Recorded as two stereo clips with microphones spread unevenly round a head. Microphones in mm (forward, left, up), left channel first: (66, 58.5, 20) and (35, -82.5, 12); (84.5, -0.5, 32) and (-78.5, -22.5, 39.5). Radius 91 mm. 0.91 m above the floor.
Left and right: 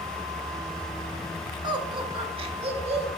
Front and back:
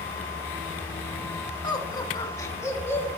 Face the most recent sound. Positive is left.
turn(degrees=-65)